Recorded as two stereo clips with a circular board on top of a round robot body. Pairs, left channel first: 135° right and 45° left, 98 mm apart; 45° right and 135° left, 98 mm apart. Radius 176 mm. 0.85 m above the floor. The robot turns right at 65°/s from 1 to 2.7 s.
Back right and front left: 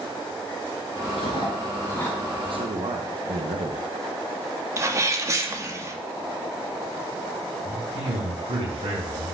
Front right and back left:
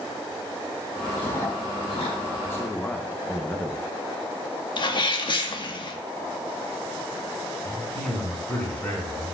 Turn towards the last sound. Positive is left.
turn(degrees=30)